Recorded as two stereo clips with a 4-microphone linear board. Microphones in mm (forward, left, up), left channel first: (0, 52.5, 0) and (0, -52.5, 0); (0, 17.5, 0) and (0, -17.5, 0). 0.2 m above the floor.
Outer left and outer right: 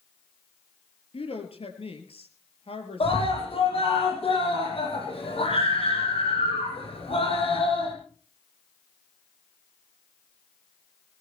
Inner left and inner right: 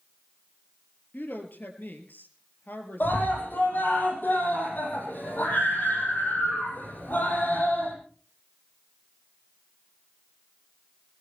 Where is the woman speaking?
65° left (ahead or behind), 4 m.